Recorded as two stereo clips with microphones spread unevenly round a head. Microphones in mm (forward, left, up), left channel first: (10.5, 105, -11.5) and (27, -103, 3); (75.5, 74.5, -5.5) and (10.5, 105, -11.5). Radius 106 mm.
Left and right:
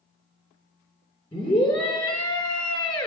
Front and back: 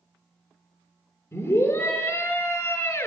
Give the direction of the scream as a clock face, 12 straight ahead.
11 o'clock.